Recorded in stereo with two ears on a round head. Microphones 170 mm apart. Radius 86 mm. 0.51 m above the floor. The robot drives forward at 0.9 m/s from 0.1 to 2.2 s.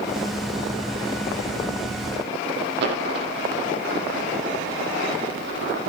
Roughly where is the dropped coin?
Right.